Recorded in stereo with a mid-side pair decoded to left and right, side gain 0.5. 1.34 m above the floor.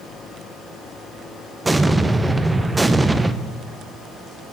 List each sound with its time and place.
1.6 s an explosion: 15° right, 0.6 m